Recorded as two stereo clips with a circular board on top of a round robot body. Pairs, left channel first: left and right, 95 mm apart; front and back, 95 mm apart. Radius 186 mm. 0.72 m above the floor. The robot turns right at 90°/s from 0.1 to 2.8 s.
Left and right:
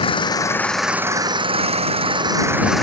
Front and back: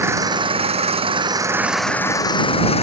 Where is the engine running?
115° left; by 2.8 s straight ahead.